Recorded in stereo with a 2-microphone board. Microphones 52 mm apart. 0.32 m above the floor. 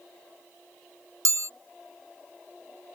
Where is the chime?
90° right.